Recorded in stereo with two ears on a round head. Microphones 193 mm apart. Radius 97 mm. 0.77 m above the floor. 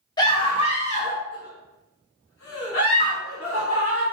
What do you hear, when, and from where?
0.2 s a scream: 20° left (ahead or behind), 1.3 m; by 4.0 s 70° left (ahead or behind), 1.8 m